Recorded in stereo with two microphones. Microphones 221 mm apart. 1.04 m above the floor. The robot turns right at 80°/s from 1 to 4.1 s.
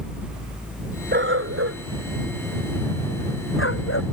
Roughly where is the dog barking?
Right.